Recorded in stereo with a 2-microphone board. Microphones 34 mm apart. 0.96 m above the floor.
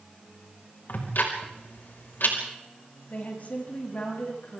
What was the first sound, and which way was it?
Ticking, 80° left.